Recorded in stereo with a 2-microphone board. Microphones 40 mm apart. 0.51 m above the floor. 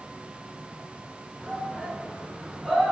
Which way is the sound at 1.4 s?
5° left (ahead or behind).